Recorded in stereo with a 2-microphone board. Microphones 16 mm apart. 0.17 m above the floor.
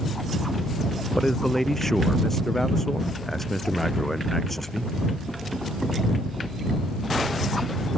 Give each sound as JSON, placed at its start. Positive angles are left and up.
{"t": 1.1, "sound": "a man speaking", "side_deg": 25}